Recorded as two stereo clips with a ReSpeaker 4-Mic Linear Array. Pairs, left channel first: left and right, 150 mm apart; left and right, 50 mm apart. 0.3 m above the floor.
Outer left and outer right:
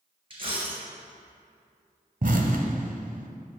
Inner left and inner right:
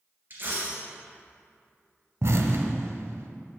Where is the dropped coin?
35° right (ahead or behind), 2.5 m.